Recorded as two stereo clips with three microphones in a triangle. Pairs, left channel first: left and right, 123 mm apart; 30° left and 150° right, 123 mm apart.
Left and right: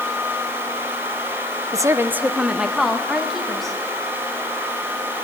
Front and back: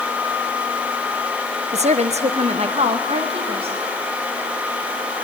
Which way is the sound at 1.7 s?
145° right.